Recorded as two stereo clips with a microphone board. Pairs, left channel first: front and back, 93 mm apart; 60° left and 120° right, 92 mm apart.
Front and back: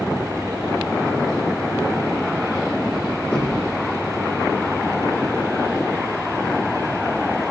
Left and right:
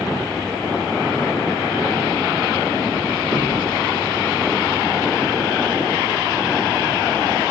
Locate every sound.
3.3 s knocking: 75° right, 5 m